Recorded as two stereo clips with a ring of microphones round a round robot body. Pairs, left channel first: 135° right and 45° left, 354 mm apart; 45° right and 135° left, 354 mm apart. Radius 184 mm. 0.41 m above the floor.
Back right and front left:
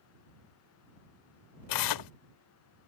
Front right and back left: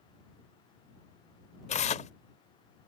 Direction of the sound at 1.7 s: 115° right.